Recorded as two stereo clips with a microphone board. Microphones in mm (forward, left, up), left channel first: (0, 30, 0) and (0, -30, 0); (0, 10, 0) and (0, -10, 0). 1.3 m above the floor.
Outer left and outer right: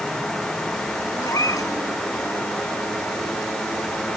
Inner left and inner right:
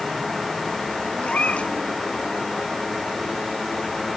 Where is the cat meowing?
70° left (ahead or behind).